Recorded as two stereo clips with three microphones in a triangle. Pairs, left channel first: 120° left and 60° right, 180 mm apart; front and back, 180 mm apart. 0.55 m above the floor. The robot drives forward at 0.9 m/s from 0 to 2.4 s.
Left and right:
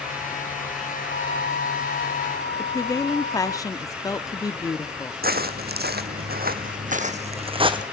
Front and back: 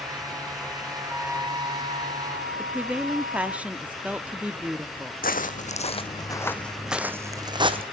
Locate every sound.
1.1 s a flute: 95° left, 0.9 m; by 3.6 s 145° left, 1.5 m
2.6 s a woman speaking: 115° left, 0.6 m
5.2 s footsteps: 35° right, 1.3 m; by 7.8 s 120° right, 1.4 m